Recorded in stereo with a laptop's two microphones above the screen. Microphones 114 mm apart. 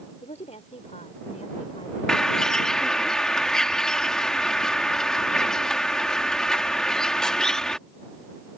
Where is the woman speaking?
80° left; by 2.0 s 70° left (ahead or behind).